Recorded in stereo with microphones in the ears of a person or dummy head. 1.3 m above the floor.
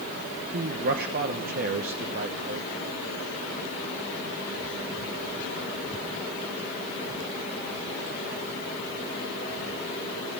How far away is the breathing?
No breathing in this recording.